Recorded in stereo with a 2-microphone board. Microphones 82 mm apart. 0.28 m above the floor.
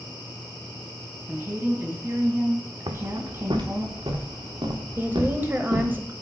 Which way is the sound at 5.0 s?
25° right (ahead or behind).